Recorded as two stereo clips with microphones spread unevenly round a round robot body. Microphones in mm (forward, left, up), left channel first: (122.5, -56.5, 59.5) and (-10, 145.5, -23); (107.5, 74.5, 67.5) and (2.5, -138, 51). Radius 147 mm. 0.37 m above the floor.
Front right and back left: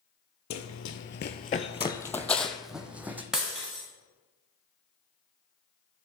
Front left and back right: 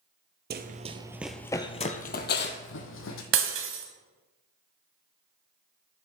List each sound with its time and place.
0.5 s running footsteps: 70° right, 0.7 m; by 3.2 s 35° left, 1.3 m
3.3 s breaking glass: 155° right, 1.1 m